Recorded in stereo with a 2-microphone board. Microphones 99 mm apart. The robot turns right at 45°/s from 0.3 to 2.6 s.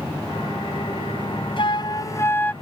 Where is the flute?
120° left; by 2.5 s 165° left.